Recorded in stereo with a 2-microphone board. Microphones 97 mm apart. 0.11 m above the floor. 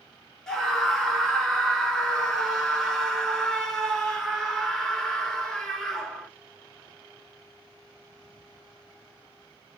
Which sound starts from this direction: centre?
A scream, at 0.5 s.